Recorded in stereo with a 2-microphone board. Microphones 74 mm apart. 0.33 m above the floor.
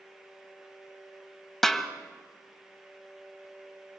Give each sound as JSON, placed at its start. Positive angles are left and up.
{"t": 1.6, "sound": "a snare drum", "side_deg": 5, "distance_m": 1.7}